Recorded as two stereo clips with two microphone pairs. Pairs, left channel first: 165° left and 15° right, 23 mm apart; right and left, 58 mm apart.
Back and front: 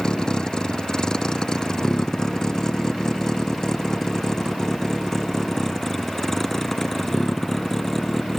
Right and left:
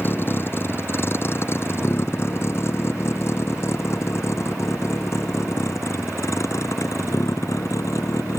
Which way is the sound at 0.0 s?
140° right.